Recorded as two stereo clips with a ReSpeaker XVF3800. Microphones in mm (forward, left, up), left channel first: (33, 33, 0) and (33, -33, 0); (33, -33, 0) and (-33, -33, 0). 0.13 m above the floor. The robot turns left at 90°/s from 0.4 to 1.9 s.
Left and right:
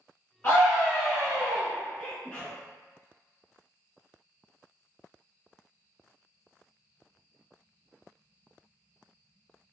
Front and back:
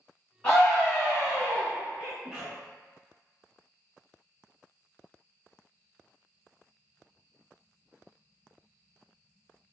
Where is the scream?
50° left, 1.4 m; by 1.7 s 60° right, 1.4 m.